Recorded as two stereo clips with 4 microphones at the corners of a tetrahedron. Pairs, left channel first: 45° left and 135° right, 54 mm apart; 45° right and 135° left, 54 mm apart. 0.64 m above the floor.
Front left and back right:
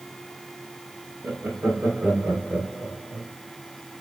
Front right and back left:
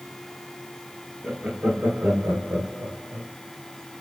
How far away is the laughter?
About 1.2 m.